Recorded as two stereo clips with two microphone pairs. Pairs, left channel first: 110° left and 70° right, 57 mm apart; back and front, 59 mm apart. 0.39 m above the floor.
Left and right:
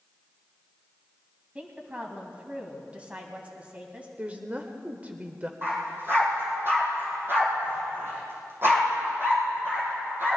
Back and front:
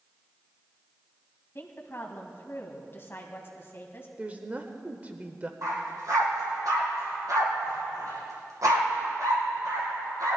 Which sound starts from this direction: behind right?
A woman speaking, at 1.6 s.